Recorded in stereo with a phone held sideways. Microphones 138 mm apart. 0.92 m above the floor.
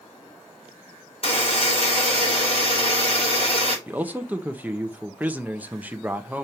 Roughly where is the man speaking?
Centre.